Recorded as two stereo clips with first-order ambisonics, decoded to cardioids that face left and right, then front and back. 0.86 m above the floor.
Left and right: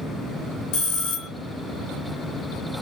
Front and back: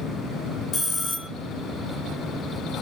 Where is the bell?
65° left, 1.0 m.